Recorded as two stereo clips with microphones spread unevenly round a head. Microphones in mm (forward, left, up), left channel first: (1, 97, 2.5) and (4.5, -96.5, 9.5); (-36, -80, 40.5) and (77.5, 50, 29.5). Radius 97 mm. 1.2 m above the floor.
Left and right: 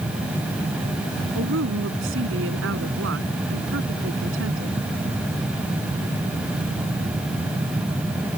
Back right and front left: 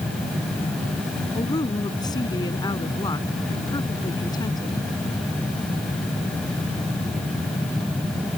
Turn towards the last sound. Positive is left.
turn(degrees=-65)